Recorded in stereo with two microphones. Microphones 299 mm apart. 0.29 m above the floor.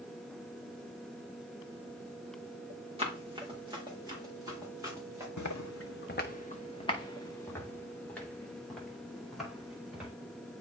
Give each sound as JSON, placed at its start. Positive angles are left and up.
{"t": 3.0, "sound": "running footsteps", "side_deg": -20, "distance_m": 2.5}
{"t": 5.4, "sound": "footsteps", "side_deg": 70, "distance_m": 0.8}